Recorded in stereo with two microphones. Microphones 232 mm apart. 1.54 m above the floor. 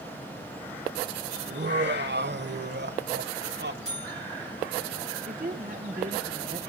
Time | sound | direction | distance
1.5 | laughter | 50° right (ahead or behind) | 1.0 m
3.9 | a buzzer | 30° right (ahead or behind) | 7 m
5.3 | a woman speaking | 35° right (ahead or behind) | 1.8 m